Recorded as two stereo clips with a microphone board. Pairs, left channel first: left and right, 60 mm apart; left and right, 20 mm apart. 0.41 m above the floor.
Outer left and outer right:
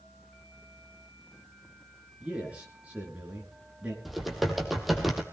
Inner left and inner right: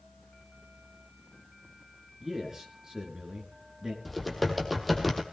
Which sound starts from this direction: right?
A man speaking, at 2.2 s.